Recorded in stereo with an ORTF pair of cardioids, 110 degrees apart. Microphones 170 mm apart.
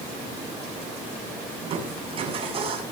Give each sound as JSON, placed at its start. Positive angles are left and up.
{"t": 1.6, "sound": "crushing", "azimuth_deg": -35, "distance_m": 7.5}